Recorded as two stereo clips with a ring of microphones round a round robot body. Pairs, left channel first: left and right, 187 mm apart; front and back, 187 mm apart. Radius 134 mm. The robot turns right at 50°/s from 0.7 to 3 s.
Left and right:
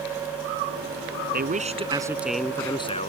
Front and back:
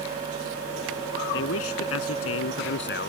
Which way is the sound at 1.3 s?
50° right.